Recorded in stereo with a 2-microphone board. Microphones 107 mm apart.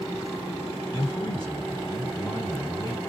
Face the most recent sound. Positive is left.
turn(degrees=40)  # may be behind; listen again after turning